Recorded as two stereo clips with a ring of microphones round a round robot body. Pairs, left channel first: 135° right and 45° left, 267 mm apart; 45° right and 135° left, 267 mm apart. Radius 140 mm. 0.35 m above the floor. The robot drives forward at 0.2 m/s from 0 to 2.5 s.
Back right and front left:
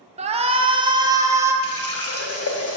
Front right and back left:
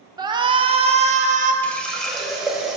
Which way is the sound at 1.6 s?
130° right.